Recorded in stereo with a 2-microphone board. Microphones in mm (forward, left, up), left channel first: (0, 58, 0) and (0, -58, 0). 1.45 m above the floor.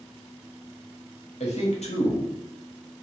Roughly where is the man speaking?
Left.